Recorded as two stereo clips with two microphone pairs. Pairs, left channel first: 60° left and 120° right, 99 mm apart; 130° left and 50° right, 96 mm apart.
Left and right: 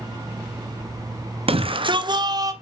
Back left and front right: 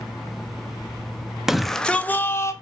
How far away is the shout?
About 0.8 m.